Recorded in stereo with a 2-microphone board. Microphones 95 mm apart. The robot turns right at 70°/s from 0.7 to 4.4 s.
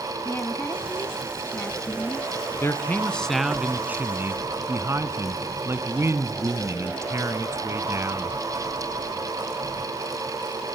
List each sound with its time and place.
0.2 s a woman speaking: 20° left (ahead or behind), 1.0 m; by 2.3 s centre (ahead or behind), 1.0 m
2.6 s a man speaking: 125° left, 1.4 m; by 8.4 s 105° right, 1.4 m